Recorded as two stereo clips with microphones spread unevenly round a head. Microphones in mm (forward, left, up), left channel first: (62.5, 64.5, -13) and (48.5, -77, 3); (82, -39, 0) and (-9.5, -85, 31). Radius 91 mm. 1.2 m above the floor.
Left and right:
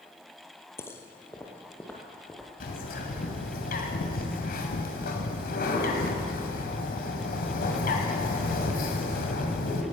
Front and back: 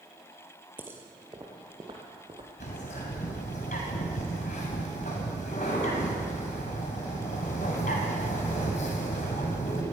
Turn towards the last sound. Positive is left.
turn(degrees=75)